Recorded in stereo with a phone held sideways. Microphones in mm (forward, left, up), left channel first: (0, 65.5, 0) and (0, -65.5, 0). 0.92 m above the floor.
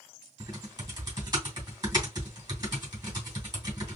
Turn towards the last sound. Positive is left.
turn(degrees=-30)  # may be behind; listen again after turning